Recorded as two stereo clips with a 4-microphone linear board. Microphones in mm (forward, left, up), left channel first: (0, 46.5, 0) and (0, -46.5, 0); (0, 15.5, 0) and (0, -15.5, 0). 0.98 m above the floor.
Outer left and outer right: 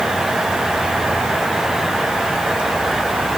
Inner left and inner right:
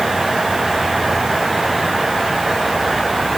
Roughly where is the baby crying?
I don't hear a baby crying.